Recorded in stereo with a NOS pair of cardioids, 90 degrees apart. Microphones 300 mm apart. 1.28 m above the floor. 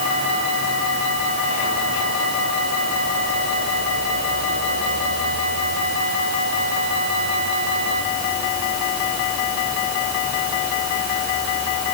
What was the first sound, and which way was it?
Only background noise.